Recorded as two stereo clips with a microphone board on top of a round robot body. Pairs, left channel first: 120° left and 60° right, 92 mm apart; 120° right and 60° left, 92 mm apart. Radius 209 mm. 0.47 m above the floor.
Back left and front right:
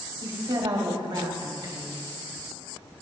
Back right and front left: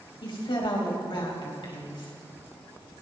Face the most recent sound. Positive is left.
turn(degrees=-95)